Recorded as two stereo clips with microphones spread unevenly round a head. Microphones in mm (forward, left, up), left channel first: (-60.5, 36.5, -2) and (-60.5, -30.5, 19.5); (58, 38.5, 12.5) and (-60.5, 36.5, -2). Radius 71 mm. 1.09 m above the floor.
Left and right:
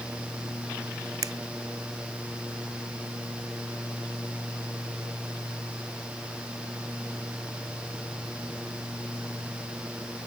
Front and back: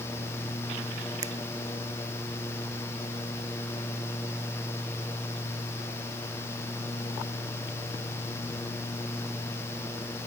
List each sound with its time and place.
1.2 s a finger snap: 110° right